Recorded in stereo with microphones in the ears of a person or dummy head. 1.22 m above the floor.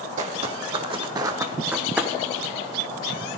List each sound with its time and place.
0.2 s footsteps: 40° right (ahead or behind), 2 m; by 2.1 s 5° right (ahead or behind), 2.5 m